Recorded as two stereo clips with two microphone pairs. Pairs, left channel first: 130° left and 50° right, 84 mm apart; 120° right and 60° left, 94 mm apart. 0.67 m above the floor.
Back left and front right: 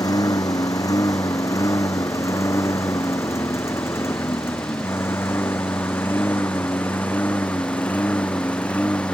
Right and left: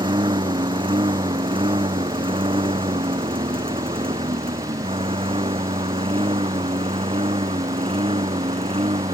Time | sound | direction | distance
0.0 | a lawn mower | 85° left | ?